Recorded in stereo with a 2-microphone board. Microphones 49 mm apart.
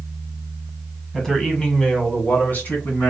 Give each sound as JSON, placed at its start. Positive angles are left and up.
{"t": 1.1, "sound": "a man speaking", "side_deg": 5, "distance_m": 1.3}